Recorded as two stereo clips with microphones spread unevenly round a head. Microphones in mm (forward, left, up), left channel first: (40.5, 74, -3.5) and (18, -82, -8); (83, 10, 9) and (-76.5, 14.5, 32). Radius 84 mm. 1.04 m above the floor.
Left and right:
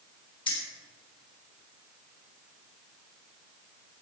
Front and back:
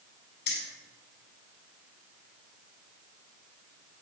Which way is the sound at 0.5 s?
25° left.